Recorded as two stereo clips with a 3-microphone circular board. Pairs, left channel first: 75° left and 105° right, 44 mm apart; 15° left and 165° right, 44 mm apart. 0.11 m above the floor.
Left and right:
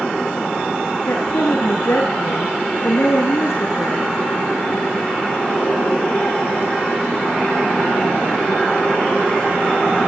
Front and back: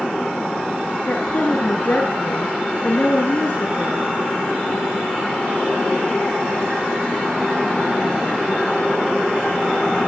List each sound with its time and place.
1.1 s a woman speaking: 60° left, 8 m